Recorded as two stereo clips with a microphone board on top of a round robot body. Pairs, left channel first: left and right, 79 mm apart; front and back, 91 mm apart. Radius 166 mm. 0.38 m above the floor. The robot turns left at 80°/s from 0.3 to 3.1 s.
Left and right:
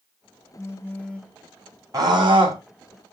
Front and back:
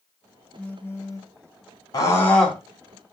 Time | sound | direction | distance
0.6 | a phone buzzing | 70° left | 1.3 m
1.9 | a scream | 45° right | 3.5 m